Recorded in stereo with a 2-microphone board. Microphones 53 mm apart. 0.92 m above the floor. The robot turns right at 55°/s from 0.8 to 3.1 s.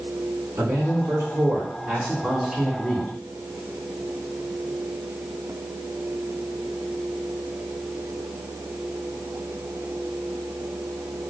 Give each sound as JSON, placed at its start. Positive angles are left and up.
{"t": 0.6, "sound": "a man speaking", "azimuth_deg": -90, "distance_m": 2.0}